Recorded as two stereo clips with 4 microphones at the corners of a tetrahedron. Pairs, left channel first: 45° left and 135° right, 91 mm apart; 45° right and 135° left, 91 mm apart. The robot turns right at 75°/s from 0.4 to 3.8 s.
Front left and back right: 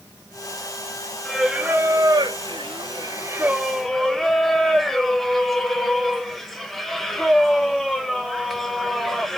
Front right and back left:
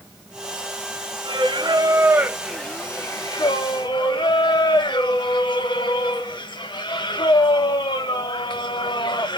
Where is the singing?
125° left, 0.6 m; by 9.4 s 40° right, 0.6 m.